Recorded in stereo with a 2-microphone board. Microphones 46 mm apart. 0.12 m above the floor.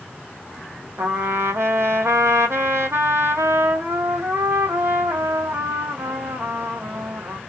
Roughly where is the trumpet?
Right.